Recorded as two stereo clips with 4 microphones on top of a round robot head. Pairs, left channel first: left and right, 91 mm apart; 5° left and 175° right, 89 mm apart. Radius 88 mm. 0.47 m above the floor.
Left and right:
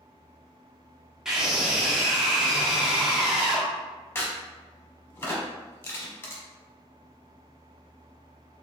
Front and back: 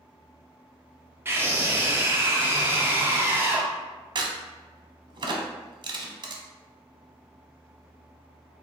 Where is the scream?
165° right, 0.8 m.